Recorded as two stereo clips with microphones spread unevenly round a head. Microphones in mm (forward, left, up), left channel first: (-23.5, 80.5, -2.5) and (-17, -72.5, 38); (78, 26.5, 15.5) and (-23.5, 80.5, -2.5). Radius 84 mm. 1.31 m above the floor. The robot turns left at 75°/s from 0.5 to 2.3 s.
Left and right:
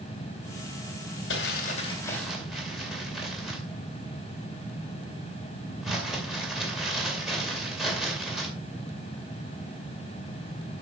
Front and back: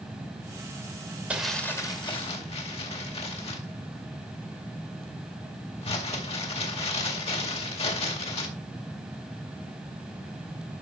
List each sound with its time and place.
1.3 s crumpling: 70° left, 2.5 m; by 8.5 s 5° right, 2.5 m